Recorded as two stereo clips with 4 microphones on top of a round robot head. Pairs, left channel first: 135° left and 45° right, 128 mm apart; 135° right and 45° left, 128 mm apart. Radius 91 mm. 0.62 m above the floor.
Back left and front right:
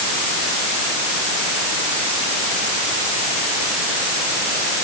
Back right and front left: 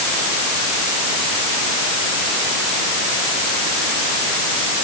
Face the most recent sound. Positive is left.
No sound to turn to.